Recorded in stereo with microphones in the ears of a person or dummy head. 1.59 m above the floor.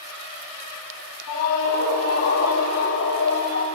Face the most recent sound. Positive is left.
turn(degrees=90)